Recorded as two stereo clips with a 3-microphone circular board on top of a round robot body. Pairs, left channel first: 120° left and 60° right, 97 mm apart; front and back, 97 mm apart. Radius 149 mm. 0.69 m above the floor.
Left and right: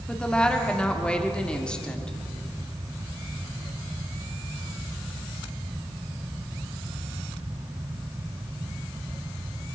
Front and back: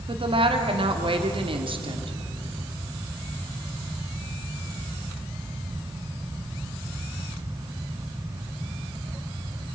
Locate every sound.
0.1 s a woman speaking: 160° right, 2.5 m